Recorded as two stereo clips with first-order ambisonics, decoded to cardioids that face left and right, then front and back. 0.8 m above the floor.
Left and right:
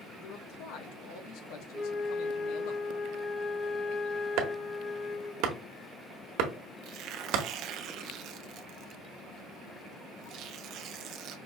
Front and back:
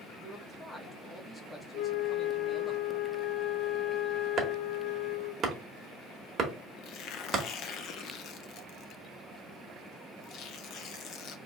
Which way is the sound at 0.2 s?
75° left.